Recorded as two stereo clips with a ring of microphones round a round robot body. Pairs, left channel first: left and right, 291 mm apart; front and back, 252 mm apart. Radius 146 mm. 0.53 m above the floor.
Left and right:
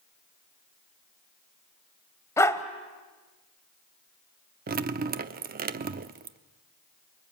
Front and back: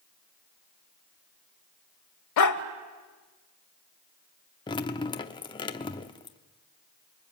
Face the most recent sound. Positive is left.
turn(degrees=-60)